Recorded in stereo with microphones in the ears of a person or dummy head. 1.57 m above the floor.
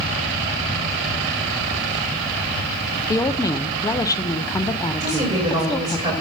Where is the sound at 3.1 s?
15° left (ahead or behind), 0.5 m.